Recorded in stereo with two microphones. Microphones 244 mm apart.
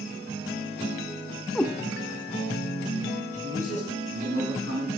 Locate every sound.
1.6 s a cat meowing: 5° left (ahead or behind), 0.7 m
3.3 s a man speaking: 75° right (ahead or behind), 3 m